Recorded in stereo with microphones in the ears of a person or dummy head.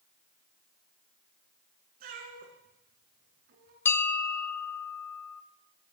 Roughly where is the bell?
Centre.